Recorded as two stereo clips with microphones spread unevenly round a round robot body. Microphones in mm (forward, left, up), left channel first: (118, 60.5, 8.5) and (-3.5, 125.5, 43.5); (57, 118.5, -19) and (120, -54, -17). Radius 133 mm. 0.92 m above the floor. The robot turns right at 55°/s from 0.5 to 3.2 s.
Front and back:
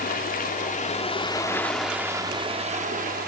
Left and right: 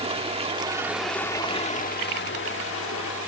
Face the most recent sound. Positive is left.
turn(degrees=140)